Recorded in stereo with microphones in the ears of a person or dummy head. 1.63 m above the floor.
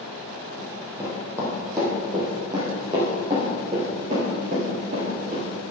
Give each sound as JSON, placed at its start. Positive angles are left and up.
{"t": 0.6, "sound": "running footsteps", "side_deg": 0, "distance_m": 4.0}